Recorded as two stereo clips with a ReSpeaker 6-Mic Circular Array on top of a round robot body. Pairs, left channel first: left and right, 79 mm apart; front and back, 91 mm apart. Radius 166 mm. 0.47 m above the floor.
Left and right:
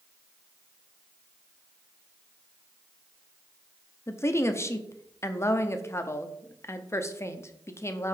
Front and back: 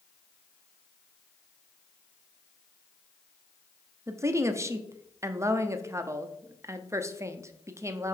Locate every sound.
4.1 s a woman speaking: 130° left, 0.9 m